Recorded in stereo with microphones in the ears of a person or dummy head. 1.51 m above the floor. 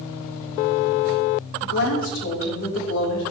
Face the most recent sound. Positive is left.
turn(degrees=75)  # may be behind; listen again after turning